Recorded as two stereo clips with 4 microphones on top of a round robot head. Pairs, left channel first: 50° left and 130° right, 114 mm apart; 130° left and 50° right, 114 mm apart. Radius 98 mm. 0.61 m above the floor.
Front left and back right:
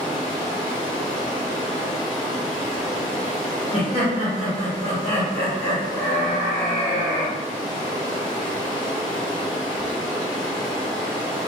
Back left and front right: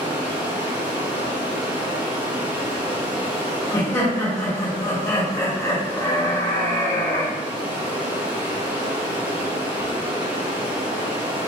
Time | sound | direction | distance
0.0 | running water | straight ahead | 1.6 m
3.7 | laughter | 70° left | 1.9 m